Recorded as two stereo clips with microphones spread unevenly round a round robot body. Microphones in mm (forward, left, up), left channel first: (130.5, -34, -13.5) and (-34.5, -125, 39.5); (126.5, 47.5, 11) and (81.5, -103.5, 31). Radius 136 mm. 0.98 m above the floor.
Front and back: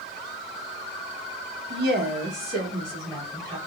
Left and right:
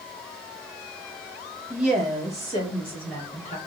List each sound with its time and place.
1.7 s a woman speaking: 170° left, 0.8 m; by 3.6 s 125° left, 2 m